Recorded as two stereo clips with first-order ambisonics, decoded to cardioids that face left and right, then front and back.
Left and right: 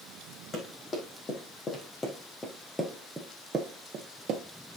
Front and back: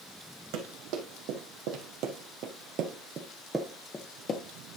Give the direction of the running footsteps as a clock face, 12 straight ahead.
7 o'clock.